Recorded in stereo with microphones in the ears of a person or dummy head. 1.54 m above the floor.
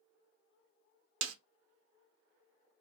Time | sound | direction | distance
1.2 | a snare drum | 80° right | 0.6 m